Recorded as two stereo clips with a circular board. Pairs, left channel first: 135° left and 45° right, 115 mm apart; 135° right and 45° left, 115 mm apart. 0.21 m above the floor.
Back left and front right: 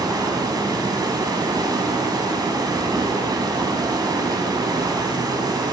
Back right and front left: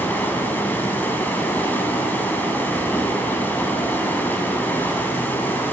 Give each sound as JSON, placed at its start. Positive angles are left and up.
{"t": 0.0, "sound": "running water", "azimuth_deg": -75, "distance_m": 1.2}